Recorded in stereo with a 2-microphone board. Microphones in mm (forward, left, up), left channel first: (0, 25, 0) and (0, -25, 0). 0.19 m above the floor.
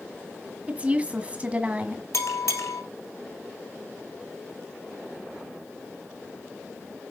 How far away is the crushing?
I don't hear crushing.